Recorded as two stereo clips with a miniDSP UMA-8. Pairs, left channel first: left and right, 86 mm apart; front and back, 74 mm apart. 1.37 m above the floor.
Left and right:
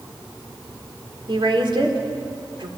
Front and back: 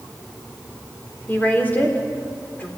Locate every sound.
1.3 s a woman speaking: 65° right, 4 m